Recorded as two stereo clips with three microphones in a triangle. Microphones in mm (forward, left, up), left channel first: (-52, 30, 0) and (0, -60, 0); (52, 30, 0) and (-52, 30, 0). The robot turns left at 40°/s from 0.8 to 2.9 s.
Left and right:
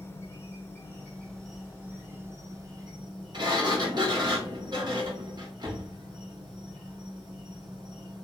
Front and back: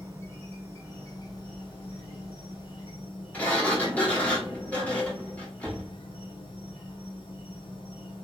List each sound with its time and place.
0.0 s an insect: 60° left, 1.0 m; by 8.3 s 25° right, 1.0 m
3.3 s a sliding door: 70° right, 1.0 m